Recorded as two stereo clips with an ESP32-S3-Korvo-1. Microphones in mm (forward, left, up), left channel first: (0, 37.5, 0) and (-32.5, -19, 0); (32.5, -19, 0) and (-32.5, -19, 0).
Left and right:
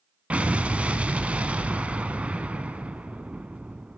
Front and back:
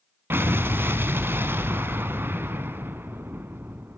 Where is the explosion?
175° right, 1.0 m.